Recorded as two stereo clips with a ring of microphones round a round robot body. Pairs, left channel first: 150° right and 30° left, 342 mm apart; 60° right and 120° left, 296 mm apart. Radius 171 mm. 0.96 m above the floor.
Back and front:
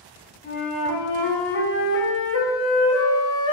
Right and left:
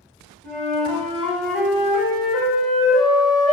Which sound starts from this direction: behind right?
A flute, at 0.4 s.